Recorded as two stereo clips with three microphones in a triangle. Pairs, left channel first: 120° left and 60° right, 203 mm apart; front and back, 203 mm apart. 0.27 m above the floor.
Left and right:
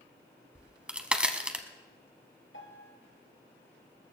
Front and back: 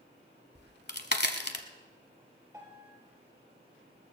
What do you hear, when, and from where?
0.6 s a crack: 25° left, 1.1 m
2.5 s a piano: 105° left, 2.5 m